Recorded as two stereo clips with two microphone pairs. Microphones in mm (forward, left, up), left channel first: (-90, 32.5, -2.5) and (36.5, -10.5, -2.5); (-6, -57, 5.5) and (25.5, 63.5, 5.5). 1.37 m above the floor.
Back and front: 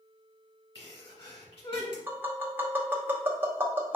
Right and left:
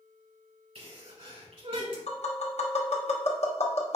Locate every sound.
0.8 s a sneeze: 115° left, 1.9 m
2.1 s tapping: 95° right, 0.8 m